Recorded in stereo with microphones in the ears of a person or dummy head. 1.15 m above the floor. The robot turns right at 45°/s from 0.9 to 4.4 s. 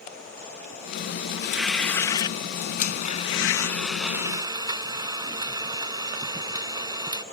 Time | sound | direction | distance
1.4 | tearing paper | 10° right | ?
2.8 | a blender | 130° left | ?